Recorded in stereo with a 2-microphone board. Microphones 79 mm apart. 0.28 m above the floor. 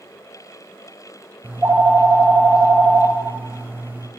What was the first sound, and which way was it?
A phone ringing, 30° right (ahead or behind).